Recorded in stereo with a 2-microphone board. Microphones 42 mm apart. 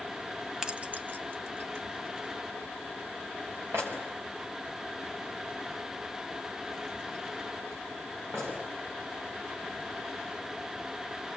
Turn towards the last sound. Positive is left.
turn(degrees=-85)